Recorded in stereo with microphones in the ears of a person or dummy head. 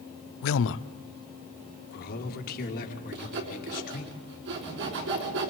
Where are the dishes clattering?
I don't hear dishes clattering.